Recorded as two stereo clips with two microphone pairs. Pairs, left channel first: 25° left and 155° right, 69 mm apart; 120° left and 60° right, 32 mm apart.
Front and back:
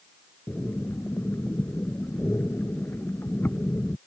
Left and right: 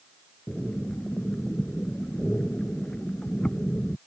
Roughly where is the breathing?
Left.